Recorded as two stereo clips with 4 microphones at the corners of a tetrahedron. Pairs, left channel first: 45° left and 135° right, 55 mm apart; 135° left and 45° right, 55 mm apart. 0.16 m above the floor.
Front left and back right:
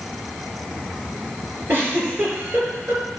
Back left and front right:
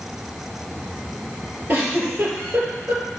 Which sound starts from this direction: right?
A giggle, at 1.7 s.